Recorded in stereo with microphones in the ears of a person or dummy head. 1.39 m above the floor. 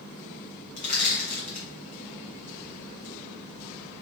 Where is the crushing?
40° left (ahead or behind), 0.8 m.